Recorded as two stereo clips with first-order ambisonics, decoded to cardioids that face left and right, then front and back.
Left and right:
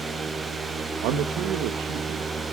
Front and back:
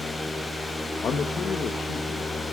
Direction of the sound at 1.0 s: 60° right.